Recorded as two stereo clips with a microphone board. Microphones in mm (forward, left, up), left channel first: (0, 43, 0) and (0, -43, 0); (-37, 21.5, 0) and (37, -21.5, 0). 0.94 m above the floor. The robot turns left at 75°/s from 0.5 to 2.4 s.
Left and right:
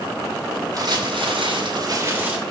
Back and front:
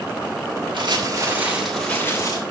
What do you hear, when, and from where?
0.7 s crumpling: 45° right, 7.5 m; by 2.4 s 170° right, 7.5 m